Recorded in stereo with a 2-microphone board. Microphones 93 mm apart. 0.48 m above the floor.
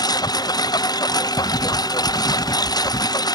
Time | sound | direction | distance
0.0 | a lawn mower | 45° left (ahead or behind) | ?
1.4 | writing | 45° left (ahead or behind) | ?